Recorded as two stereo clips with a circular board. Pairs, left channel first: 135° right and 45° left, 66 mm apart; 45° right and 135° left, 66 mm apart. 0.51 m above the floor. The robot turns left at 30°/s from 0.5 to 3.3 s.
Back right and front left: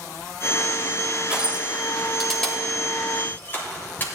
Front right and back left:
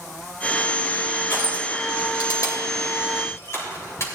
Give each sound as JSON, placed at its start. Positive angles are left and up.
{"t": 1.3, "sound": "crushing", "azimuth_deg": -20, "distance_m": 2.5}